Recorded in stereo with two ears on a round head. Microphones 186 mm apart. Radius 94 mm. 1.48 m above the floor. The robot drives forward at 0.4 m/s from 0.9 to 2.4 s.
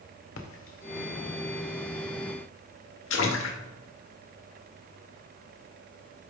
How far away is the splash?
About 1.1 m.